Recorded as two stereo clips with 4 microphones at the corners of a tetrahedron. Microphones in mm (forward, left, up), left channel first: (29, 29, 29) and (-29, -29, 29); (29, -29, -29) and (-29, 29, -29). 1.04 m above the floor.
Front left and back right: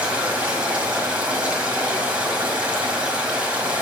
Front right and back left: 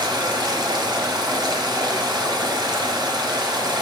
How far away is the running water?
About 1.6 m.